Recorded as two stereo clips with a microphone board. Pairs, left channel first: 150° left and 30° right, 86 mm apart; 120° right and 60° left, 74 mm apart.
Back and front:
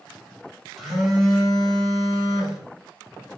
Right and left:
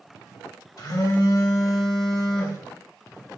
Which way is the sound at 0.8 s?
120° right.